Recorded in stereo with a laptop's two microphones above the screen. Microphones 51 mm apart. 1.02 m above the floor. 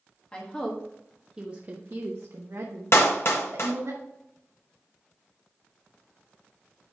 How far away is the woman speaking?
About 1.3 m.